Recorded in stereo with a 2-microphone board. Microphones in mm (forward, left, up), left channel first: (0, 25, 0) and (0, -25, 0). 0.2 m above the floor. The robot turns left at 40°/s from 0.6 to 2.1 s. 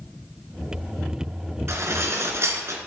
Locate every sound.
1.7 s dishes clattering: 65° right (ahead or behind), 1.9 m; by 2.8 s 60° right (ahead or behind), 1.9 m